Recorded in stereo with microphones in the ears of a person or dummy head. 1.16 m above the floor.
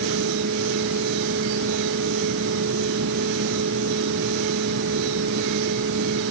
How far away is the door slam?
No door slam in this recording.